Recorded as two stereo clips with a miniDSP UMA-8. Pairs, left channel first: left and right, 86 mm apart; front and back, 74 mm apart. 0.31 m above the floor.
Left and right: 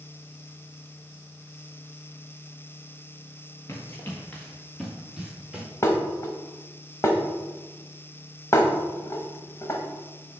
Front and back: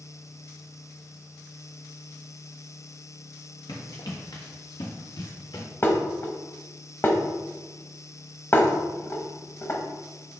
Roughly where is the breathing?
I don't hear breathing.